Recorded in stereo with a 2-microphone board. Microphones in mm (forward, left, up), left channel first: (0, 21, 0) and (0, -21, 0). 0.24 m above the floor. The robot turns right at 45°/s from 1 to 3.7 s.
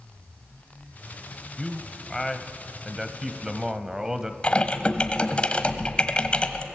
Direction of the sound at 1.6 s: 20° left (ahead or behind).